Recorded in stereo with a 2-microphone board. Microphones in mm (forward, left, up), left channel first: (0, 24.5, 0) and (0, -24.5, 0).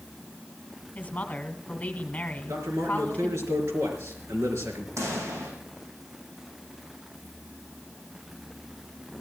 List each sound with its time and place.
0.9 s a woman speaking: 30° left (ahead or behind), 1.5 m
2.5 s a man speaking: 75° right (ahead or behind), 5 m
5.0 s a pop: 85° right, 6 m